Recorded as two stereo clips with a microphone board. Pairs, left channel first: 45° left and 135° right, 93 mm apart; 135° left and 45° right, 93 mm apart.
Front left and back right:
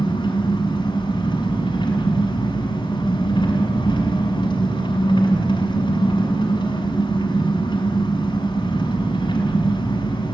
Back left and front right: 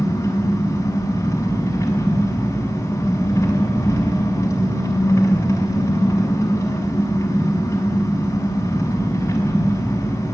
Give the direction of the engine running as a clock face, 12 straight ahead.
9 o'clock.